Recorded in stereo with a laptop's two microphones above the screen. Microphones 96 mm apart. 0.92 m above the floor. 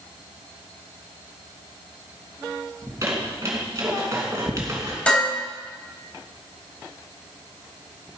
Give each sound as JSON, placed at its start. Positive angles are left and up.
{"t": 2.8, "sound": "a squeak", "side_deg": -30, "distance_m": 2.5}
{"t": 5.1, "sound": "dishes clattering", "side_deg": 10, "distance_m": 4.0}